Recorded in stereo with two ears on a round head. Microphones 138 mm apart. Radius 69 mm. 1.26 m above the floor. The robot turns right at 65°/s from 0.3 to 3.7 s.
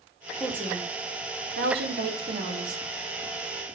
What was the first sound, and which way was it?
A woman speaking, 175° right.